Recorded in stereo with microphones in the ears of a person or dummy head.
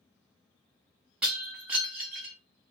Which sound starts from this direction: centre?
Breaking glass, at 1.2 s.